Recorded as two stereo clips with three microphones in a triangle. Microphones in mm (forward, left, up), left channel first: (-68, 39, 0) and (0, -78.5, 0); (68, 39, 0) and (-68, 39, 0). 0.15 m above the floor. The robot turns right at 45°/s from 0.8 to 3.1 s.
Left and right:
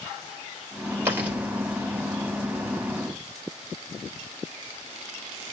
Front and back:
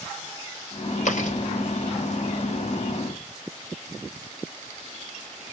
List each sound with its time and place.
1.1 s chewing: 10° left, 3.5 m; by 1.4 s 25° left, 3.5 m